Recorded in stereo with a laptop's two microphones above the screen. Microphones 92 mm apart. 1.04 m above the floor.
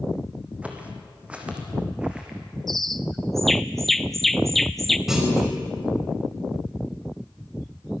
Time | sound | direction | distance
0.6 | footsteps | 15° right (ahead or behind) | 3 m
2.7 | a bird | centre (ahead or behind) | 0.5 m
5.1 | a clunk | 5° right (ahead or behind) | 5 m